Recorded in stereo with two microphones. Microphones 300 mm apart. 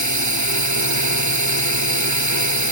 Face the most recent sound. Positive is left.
turn(degrees=-70)  # may be behind; listen again after turning